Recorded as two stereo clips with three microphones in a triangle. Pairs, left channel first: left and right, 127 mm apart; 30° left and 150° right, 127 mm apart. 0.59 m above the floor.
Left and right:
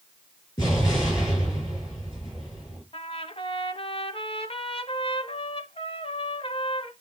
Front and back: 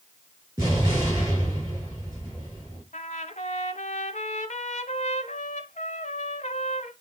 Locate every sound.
0.6 s an explosion: 145° left, 7 m
2.9 s a trumpet: 50° left, 1.0 m